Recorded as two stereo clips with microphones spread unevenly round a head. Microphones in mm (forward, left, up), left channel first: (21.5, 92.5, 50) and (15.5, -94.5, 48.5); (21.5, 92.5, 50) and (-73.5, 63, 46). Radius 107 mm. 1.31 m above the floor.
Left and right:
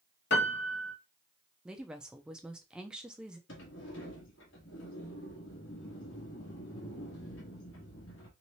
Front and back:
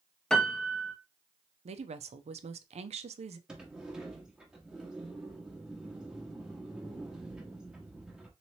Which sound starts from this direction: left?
A piano, at 0.3 s.